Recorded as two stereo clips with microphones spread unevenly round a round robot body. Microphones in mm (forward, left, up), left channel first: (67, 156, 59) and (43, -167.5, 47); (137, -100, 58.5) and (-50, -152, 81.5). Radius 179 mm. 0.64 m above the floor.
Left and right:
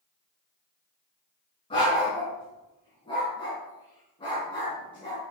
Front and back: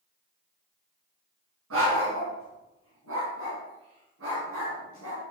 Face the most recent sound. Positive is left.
turn(degrees=160)